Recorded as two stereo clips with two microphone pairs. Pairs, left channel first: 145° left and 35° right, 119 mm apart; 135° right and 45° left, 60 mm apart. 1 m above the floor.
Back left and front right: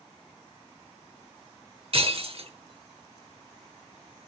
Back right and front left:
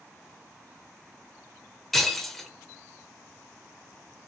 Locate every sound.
1.9 s breaking glass: 50° right, 1.0 m